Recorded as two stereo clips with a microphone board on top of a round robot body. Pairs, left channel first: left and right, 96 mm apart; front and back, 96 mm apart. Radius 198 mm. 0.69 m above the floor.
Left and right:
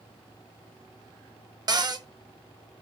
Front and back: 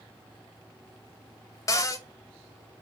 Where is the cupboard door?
50° right, 0.8 m.